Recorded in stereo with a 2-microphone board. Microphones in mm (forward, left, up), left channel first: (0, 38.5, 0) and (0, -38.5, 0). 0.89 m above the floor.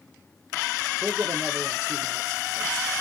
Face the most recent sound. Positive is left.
turn(degrees=-65)  # may be behind; listen again after turning